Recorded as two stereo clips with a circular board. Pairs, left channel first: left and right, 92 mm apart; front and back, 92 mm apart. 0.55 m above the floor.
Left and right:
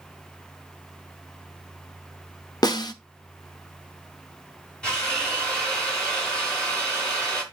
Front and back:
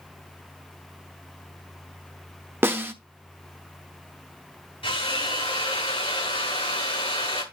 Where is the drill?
10° left, 5 m.